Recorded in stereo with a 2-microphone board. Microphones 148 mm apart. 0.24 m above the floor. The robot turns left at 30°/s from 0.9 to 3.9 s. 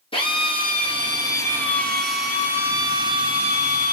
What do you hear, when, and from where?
0.1 s a drill: 35° left, 3 m; by 3.9 s 55° right, 3 m